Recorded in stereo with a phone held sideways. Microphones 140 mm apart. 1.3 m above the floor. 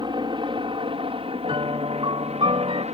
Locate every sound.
0.0 s a helicopter: 35° right (ahead or behind); by 3.0 s 50° right (ahead or behind)
1.4 s a piano: 40° right (ahead or behind)